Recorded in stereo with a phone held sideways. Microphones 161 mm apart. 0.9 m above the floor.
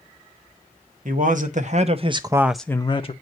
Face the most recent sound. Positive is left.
turn(degrees=45)  # may be behind; listen again after turning